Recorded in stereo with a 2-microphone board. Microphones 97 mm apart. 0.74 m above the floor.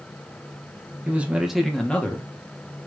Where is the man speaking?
15° right (ahead or behind), 1.0 m; by 2.9 s 35° left (ahead or behind), 1.1 m.